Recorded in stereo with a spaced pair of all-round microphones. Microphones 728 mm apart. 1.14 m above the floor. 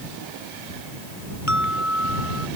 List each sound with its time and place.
1.5 s an alarm: 25° right (ahead or behind)